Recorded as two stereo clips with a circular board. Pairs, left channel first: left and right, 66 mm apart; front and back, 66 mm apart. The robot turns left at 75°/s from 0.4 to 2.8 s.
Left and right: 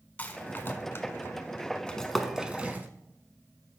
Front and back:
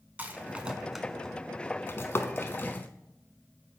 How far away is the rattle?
About 0.6 m.